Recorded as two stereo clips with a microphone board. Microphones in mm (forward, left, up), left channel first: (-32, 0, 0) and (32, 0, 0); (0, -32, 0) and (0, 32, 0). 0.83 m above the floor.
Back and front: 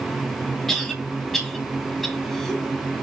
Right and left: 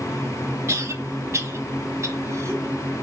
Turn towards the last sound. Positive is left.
turn(degrees=90)